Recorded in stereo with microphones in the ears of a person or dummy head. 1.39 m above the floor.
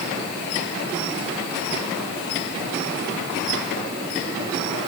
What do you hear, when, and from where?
Only background noise.